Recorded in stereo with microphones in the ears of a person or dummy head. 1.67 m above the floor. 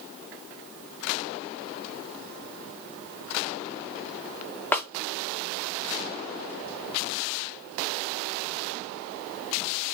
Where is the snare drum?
10° left (ahead or behind), 0.6 m.